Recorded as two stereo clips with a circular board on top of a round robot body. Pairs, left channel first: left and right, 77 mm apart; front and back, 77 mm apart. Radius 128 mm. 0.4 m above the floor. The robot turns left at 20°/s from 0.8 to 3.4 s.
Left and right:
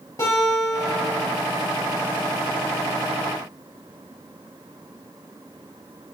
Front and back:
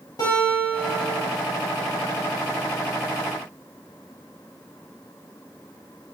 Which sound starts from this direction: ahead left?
A guitar, at 0.2 s.